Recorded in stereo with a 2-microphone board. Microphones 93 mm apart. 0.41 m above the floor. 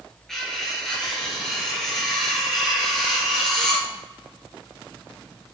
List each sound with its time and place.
0.3 s cutlery clinking: 5° left (ahead or behind), 4 m